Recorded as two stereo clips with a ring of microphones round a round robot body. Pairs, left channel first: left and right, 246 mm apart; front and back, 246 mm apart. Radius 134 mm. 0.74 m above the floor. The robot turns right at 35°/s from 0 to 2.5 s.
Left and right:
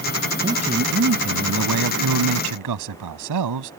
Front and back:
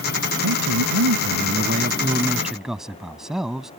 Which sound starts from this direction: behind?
A man speaking, at 0.4 s.